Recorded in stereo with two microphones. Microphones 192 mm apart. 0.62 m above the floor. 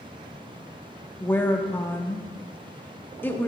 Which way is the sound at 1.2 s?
10° left (ahead or behind).